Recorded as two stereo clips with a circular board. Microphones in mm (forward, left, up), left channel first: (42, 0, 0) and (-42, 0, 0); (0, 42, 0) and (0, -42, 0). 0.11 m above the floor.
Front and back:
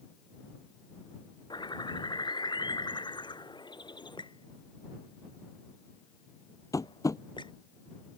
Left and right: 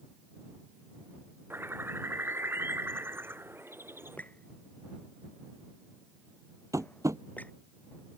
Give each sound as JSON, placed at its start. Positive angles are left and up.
{"t": 1.5, "sound": "a bird", "azimuth_deg": -25}
{"t": 4.2, "sound": "a squeak", "azimuth_deg": 20}
{"t": 6.7, "sound": "tapping", "azimuth_deg": -45}